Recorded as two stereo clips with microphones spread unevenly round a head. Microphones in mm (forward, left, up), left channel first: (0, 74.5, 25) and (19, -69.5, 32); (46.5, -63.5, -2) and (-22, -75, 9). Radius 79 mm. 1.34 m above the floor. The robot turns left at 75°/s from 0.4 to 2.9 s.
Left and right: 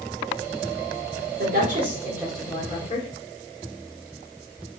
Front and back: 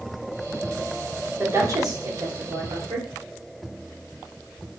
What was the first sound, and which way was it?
A woman speaking, 105° right.